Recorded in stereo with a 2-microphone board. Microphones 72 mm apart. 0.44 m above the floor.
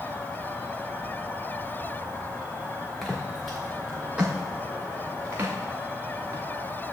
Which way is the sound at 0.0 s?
15° right (ahead or behind).